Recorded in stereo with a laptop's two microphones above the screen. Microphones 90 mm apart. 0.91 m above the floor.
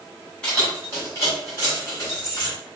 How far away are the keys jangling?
About 1.8 m.